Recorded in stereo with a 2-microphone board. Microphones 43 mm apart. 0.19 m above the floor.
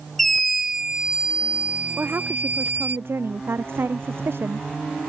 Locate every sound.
0.2 s a scream: 5° left (ahead or behind); by 3.0 s 45° right (ahead or behind)
2.0 s a woman speaking: 60° right (ahead or behind)